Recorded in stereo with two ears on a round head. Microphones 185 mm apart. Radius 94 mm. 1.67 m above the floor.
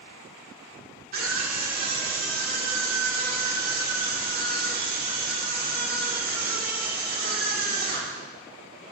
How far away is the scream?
About 2.5 m.